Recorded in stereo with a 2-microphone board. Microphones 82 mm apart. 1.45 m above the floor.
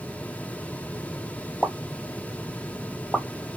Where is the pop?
5° left (ahead or behind), 1.3 m.